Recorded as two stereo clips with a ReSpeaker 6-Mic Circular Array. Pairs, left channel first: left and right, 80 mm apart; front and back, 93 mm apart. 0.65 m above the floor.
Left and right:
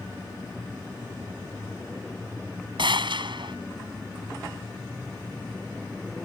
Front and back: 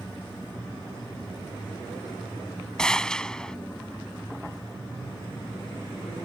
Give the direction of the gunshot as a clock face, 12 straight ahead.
3 o'clock.